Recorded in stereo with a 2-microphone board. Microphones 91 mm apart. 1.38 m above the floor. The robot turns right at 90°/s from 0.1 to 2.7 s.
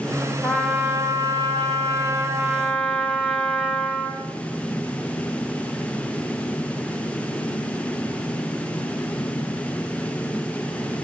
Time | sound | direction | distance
0.4 | a trumpet | 170° left | 1.5 m